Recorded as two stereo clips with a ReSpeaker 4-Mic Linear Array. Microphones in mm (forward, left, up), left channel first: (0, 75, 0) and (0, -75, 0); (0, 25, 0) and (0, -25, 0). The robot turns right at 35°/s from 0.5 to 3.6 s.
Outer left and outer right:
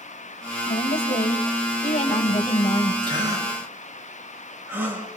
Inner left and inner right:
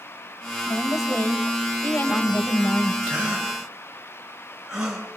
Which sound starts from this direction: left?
A woman speaking, at 0.7 s.